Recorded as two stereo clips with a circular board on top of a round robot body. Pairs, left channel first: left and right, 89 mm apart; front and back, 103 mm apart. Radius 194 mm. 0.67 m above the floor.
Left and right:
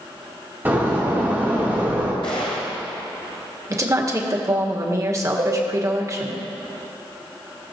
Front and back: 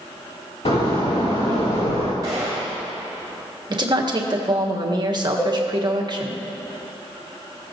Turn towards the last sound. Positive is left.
turn(degrees=-65)